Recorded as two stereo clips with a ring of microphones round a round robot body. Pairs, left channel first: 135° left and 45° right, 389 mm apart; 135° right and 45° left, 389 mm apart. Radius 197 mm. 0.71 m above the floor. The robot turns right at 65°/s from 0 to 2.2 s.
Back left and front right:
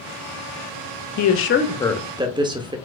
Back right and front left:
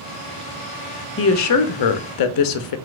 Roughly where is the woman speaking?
Behind.